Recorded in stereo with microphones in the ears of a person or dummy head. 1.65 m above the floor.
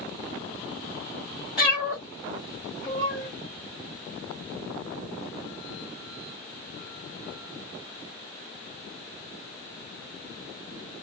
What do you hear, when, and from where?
1.6 s a cat meowing: 5° right (ahead or behind), 1.4 m; by 3.3 s 35° right (ahead or behind), 2 m